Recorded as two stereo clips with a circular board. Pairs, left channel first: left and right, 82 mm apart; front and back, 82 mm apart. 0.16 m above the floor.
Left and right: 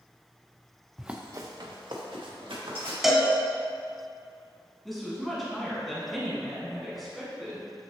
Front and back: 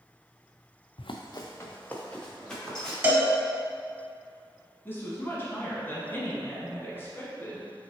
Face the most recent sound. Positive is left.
turn(degrees=0)